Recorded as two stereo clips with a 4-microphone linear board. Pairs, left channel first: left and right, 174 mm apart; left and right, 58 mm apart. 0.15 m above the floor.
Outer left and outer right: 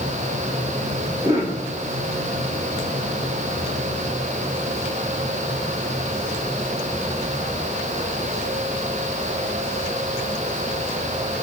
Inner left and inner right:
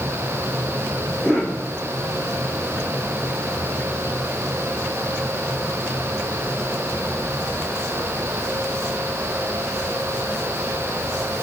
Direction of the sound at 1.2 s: 20° right (ahead or behind).